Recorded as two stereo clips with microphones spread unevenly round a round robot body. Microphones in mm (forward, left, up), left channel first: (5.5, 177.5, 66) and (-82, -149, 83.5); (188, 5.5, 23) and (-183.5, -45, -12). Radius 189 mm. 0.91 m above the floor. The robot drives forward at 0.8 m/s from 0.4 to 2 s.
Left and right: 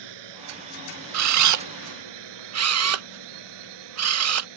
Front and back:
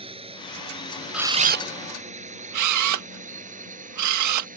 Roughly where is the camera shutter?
Right.